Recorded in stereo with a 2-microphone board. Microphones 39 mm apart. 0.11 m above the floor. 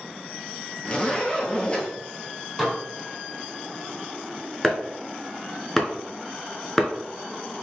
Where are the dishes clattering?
5° left (ahead or behind), 1.8 m.